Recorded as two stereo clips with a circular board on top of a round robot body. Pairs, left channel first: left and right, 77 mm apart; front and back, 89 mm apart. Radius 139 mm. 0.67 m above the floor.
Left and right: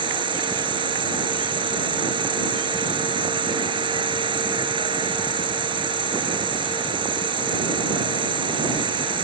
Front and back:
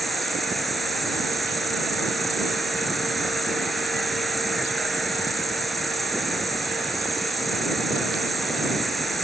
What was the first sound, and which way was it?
An insect, 90° right.